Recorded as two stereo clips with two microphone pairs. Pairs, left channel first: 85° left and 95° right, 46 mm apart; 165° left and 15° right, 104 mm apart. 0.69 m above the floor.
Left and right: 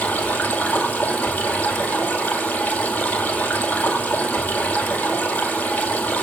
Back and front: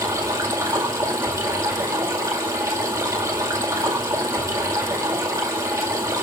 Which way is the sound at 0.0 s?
40° left.